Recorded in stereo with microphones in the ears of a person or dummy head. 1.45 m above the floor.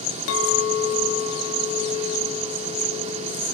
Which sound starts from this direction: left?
A clink, at 0.3 s.